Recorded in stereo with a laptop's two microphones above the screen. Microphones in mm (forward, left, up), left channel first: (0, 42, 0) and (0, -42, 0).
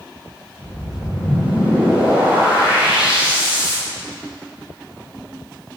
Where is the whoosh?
15° right (ahead or behind), 5 m.